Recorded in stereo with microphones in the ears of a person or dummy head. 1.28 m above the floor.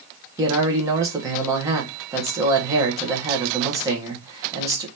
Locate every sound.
0.4 s a man speaking: 20° right (ahead or behind), 1.0 m